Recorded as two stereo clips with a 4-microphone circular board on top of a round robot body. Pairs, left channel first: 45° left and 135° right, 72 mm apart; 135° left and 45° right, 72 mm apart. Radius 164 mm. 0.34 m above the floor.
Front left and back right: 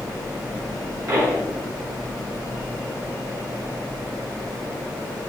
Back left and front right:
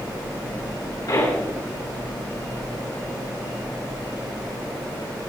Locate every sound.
1.1 s a pop: 170° left, 6.5 m